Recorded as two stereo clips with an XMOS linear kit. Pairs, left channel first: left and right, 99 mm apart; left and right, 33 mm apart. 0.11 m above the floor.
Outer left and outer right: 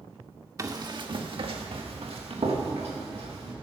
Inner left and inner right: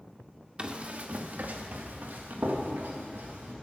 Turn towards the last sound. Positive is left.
turn(degrees=-90)